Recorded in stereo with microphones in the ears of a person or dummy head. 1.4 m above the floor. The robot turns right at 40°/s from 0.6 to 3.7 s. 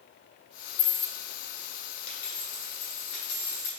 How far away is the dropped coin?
About 1.6 m.